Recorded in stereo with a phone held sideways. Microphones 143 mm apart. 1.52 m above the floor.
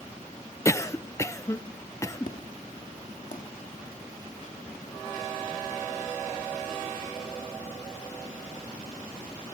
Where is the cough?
20° left (ahead or behind), 0.7 m.